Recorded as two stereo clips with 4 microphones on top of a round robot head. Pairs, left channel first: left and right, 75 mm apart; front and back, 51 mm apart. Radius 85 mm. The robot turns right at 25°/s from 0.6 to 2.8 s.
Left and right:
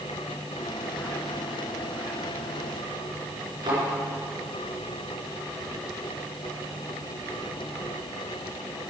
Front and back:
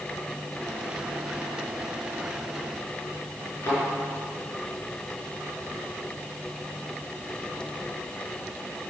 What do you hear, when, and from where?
3.6 s a thud: 55° right, 5 m